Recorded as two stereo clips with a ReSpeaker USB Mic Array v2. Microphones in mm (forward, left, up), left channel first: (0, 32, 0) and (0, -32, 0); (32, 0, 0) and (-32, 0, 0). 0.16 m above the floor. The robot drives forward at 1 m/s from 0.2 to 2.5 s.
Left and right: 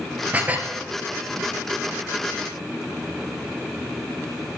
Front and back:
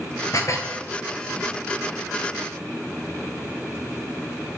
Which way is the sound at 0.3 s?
25° right.